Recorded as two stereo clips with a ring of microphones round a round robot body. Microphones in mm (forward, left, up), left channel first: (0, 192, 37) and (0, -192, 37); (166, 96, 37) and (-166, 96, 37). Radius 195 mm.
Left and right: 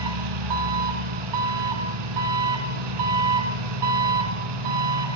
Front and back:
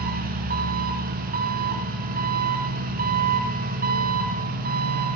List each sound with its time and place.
0.0 s an engine running: 110° right, 2.5 m